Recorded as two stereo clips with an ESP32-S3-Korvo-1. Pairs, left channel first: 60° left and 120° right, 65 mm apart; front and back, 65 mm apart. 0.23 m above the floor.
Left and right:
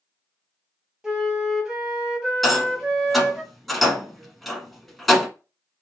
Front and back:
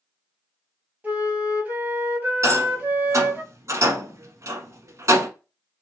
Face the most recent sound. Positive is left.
turn(degrees=150)